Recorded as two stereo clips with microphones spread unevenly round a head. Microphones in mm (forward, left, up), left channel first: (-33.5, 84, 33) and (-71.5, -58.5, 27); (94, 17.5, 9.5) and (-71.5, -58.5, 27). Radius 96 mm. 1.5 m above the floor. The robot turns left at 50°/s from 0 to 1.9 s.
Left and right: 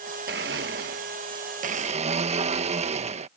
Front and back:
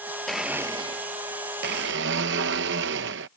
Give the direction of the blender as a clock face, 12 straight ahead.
2 o'clock.